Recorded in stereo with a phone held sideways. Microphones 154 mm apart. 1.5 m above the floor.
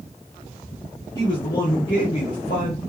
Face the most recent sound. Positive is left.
turn(degrees=60)  # may be behind; listen again after turning